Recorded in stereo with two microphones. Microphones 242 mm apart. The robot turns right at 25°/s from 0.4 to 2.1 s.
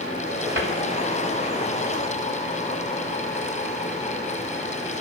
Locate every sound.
0.6 s a cupboard door: 60° right (ahead or behind), 3 m